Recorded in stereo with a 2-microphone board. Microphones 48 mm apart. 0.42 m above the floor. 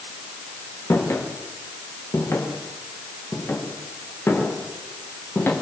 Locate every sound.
0.9 s footsteps: 75° left (ahead or behind), 6.5 m; by 5.5 s 45° left (ahead or behind), 6.5 m